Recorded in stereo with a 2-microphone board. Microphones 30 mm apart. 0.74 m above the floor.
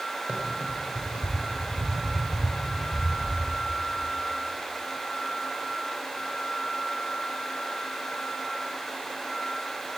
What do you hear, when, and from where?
0.3 s running footsteps: 65° right (ahead or behind), 5.5 m; by 3.4 s 80° right, 7.5 m